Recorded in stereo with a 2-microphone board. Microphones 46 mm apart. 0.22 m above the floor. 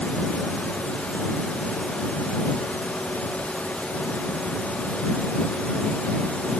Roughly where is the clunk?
I don't hear a clunk.